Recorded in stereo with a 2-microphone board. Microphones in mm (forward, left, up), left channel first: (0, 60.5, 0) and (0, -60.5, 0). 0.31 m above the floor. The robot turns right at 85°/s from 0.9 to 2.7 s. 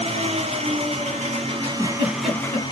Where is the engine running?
110° right, 1.3 m; by 2.7 s 40° left, 1.3 m.